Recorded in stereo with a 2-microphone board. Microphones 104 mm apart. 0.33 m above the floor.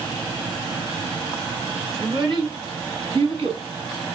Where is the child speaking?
45° right (ahead or behind), 2.5 m; by 3.6 s 65° right (ahead or behind), 1.9 m.